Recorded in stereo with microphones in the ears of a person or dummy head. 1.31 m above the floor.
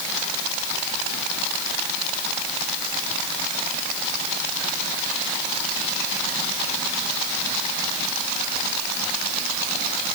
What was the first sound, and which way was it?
Only background noise.